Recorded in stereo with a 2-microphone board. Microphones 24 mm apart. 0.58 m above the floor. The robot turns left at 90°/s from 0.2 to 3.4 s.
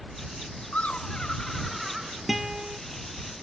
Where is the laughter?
90° left; by 2.1 s 40° right.